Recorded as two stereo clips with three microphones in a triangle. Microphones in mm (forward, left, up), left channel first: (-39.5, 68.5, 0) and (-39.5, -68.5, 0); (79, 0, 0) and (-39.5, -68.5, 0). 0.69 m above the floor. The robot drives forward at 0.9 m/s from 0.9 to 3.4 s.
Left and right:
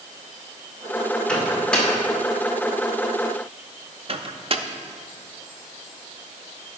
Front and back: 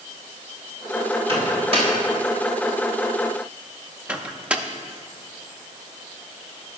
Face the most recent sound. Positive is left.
turn(degrees=-70)